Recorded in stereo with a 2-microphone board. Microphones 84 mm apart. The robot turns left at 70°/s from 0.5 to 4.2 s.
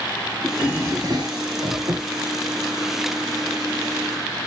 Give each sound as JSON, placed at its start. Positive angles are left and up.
{"t": 0.4, "sound": "a drawer", "azimuth_deg": -10, "distance_m": 2.0}